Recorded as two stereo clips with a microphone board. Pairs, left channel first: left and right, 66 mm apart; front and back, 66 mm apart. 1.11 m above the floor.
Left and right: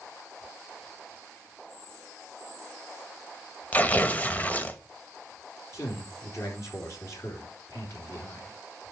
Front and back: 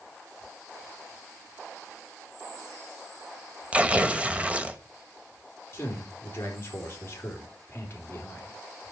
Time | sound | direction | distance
3.7 | tearing paper | 130° left | 1.0 m
5.7 | a man speaking | 50° left | 3.5 m